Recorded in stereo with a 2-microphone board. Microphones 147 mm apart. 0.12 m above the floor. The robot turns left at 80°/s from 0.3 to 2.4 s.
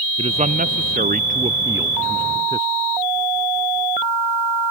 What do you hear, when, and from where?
0.2 s a man speaking: 40° right; by 2.7 s 150° left